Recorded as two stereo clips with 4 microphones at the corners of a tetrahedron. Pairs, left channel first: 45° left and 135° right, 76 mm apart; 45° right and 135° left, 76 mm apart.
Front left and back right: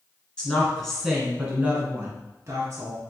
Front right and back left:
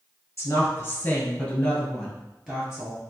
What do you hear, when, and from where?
0.4 s a woman speaking: 20° right, 1.3 m; by 3.0 s 155° right, 1.4 m